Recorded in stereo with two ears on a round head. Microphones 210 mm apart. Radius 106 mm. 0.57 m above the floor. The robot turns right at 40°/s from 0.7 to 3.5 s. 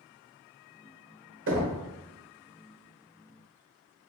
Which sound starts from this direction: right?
Knocking, at 1.5 s.